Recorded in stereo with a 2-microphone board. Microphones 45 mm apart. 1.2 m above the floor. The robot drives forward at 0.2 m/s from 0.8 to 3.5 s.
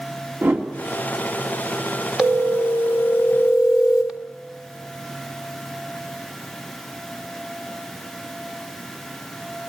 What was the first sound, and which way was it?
A whoosh, 60° right (ahead or behind).